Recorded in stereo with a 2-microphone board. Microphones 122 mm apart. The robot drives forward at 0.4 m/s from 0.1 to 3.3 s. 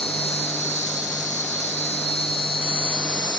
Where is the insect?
55° left (ahead or behind), 0.8 m; by 3.4 s 40° left (ahead or behind), 1.1 m.